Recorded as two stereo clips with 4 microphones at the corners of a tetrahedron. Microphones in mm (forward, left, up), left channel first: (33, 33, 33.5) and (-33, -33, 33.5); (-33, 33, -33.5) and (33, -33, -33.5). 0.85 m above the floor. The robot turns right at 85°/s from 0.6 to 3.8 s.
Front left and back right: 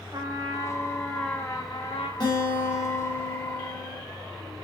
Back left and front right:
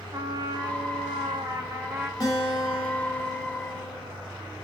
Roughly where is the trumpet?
Right.